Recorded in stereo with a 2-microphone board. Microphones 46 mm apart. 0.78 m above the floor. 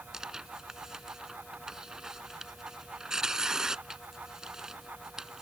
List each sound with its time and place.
0.1 s tearing paper: 15° right (ahead or behind)